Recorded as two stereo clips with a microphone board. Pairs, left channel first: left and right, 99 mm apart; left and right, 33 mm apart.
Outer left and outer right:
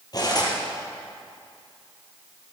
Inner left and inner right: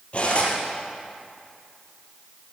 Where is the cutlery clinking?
40° left (ahead or behind), 3.5 m.